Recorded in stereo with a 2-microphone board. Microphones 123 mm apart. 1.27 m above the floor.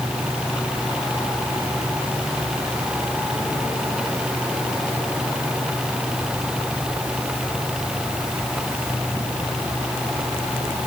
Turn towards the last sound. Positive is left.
No sound to turn to.